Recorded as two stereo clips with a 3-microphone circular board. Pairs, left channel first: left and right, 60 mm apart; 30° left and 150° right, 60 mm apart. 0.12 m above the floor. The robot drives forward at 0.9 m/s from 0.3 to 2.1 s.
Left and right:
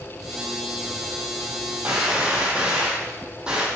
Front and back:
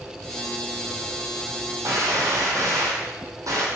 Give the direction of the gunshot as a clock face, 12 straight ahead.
5 o'clock.